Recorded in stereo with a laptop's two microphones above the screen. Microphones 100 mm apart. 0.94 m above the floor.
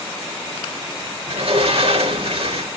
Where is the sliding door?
75° right (ahead or behind), 1.9 m.